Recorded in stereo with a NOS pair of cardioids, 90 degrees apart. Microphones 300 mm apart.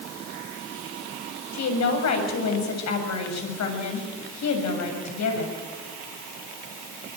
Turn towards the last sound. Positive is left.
turn(degrees=65)